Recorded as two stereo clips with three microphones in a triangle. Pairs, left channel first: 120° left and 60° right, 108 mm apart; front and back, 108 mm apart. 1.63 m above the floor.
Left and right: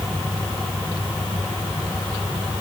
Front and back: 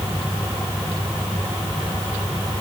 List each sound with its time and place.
Only background noise.